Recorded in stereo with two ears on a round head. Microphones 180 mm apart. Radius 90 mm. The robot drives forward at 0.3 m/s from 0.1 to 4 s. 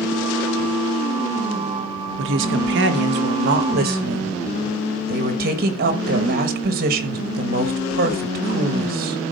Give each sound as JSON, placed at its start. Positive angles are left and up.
{"t": 2.2, "sound": "a woman speaking", "side_deg": -65, "distance_m": 1.1}